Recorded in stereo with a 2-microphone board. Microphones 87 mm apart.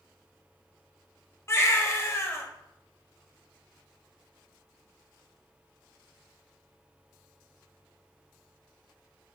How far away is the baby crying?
About 0.7 m.